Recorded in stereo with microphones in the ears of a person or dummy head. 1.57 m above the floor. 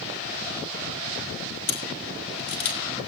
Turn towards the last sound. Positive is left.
turn(degrees=70)  # may be behind; listen again after turning